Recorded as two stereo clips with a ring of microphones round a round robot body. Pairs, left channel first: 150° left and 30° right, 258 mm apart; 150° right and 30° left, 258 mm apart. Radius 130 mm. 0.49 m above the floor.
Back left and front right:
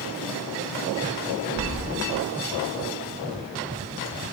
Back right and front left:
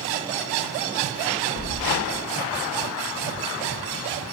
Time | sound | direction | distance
1.6 | keys jangling | 175° right | 1.7 m